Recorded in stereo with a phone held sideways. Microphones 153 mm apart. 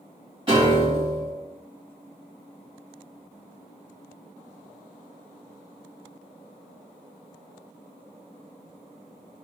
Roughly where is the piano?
Right.